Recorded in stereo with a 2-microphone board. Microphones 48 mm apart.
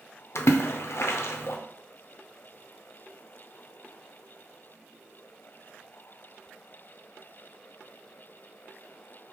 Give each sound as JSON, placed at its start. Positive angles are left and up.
{"t": 0.3, "sound": "a splash", "side_deg": 65, "distance_m": 0.5}